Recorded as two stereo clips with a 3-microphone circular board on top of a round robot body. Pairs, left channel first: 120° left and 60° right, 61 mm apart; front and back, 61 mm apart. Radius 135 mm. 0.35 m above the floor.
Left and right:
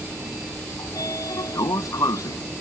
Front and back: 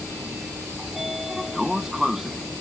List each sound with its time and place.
0.8 s a sliding door: 95° left